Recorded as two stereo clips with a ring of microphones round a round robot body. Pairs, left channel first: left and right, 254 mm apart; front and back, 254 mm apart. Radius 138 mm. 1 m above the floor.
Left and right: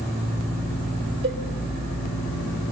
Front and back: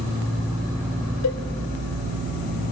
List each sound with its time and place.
1.2 s a cowbell: 35° right, 1.4 m